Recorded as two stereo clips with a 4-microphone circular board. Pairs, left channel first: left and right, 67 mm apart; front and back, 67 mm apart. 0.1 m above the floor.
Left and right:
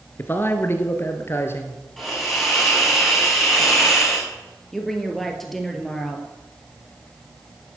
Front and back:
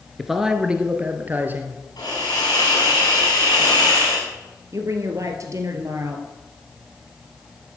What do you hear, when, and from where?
0.2 s a man speaking: 90° left, 1.7 m; by 1.8 s 130° left, 2.5 m
2.0 s a hiss: straight ahead, 7.5 m
4.7 s a woman speaking: 175° left, 2.5 m